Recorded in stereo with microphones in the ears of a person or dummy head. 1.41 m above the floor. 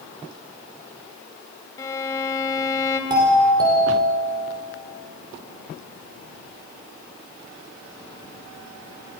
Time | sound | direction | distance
1.8 | a violin | 20° left (ahead or behind) | 2.5 m
3.1 | a doorbell | 20° right (ahead or behind) | 6 m